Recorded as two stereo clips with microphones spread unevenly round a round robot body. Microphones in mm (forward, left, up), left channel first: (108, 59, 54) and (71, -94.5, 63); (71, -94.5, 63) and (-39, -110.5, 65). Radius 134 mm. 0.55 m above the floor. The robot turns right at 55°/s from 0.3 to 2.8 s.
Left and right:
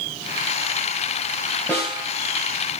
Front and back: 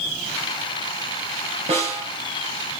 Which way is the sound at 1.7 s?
155° left.